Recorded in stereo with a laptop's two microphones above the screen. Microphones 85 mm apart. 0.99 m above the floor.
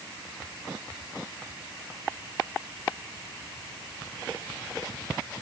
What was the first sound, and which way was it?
Only background noise.